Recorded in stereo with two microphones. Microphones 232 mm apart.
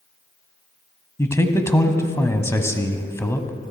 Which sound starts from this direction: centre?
A man speaking, at 1.2 s.